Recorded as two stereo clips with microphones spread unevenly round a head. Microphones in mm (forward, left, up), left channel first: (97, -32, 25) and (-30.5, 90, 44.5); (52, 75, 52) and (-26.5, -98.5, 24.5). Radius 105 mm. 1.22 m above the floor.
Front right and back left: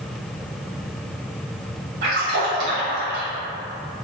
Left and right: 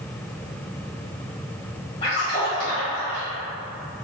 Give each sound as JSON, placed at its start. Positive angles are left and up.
{"t": 2.0, "sound": "a splash", "azimuth_deg": 125, "distance_m": 1.9}